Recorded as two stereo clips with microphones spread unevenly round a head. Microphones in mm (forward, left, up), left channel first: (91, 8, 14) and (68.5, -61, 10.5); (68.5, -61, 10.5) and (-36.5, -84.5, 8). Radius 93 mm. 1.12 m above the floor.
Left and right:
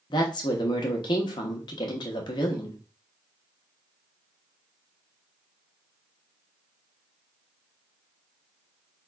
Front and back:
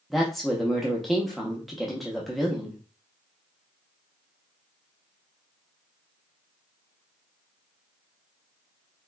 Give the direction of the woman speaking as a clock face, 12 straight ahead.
9 o'clock.